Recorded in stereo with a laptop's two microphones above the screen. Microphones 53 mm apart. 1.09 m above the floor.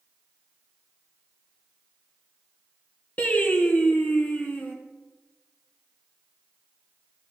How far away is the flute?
No flute in this recording.